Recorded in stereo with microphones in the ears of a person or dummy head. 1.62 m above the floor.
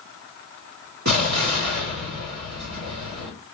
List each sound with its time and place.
1.1 s an explosion: 55° right (ahead or behind), 2.5 m